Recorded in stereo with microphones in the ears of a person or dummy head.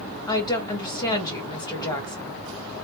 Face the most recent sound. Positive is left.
turn(degrees=20)  # may be behind; listen again after turning